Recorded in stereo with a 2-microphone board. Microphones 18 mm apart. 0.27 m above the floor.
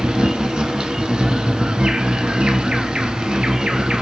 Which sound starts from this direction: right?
An insect, at 0.0 s.